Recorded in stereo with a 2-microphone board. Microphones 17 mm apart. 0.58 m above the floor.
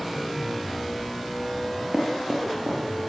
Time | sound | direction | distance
1.6 | knocking | 90° right | 7 m